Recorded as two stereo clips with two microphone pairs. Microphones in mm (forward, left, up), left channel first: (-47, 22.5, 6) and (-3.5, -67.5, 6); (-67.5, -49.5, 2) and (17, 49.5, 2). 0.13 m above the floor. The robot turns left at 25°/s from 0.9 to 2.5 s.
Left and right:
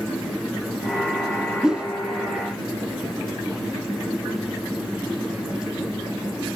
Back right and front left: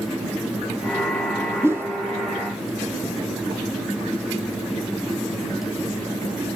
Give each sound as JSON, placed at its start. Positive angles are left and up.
{"t": 1.6, "sound": "a whoosh", "azimuth_deg": 5, "distance_m": 1.6}